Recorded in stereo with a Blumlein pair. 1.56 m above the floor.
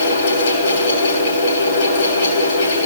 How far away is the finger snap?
No finger snap in this recording.